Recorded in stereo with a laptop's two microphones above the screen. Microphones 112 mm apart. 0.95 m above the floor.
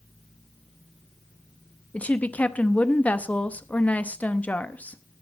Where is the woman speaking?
15° left (ahead or behind), 0.9 m.